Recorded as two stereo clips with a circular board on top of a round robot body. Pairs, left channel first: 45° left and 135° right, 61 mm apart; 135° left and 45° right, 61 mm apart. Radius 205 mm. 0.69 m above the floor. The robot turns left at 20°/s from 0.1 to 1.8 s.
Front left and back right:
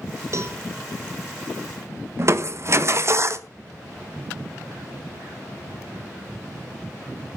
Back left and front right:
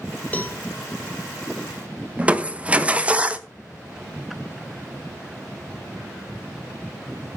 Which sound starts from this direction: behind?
A cowbell, at 0.3 s.